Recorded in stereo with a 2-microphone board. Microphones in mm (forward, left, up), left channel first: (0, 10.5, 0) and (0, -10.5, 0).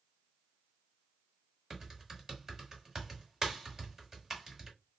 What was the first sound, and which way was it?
Typing on a keyboard, 25° right (ahead or behind).